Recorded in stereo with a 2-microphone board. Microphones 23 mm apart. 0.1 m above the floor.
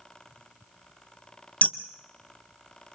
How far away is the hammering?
About 0.8 m.